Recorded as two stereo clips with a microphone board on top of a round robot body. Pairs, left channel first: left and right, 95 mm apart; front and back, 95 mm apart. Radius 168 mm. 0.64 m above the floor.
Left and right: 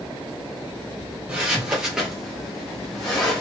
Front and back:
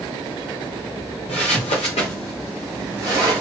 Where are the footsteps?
15° right, 0.9 m; by 3.4 s 145° left, 0.7 m.